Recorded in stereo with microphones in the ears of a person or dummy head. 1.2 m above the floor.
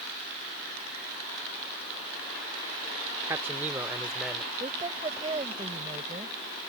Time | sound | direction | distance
3.3 | a man speaking | 10° right (ahead or behind) | ?
4.6 | a woman speaking | 30° right (ahead or behind) | ?